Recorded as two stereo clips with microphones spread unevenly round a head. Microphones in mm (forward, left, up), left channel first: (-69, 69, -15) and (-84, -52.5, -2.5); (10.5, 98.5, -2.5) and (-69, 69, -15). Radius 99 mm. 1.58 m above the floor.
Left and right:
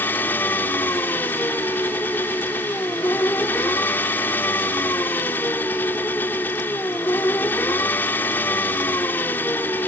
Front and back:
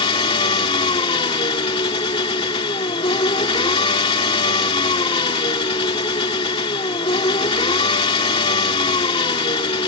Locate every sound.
0.0 s an engine running: straight ahead